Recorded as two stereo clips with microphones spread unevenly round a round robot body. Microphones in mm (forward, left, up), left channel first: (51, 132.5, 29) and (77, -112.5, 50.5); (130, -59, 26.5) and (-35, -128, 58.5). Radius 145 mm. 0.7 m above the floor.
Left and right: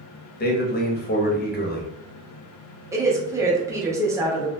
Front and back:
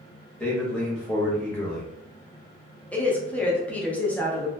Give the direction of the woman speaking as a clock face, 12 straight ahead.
12 o'clock.